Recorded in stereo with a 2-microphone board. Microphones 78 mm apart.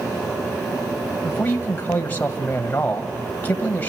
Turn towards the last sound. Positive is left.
turn(degrees=25)  # may be behind; listen again after turning